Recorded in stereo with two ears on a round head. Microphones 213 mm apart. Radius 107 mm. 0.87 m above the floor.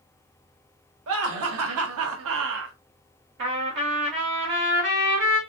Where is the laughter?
60° right (ahead or behind), 1.2 m; by 2.8 s 50° right (ahead or behind), 0.9 m.